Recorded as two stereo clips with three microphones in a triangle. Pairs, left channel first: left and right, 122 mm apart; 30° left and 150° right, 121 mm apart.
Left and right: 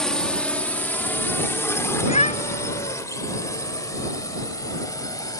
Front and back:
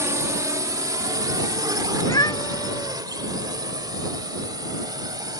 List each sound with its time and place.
0.0 s a drone: 170° left; by 5.4 s 150° left
2.0 s a cat meowing: 85° left